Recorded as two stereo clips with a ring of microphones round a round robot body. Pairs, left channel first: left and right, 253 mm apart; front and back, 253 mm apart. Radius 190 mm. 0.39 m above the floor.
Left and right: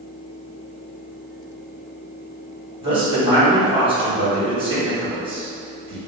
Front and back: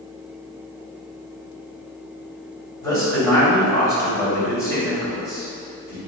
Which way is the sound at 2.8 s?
60° right.